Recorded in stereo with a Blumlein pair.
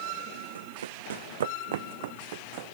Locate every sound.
0.6 s running footsteps: 70° right; by 2.8 s 50° right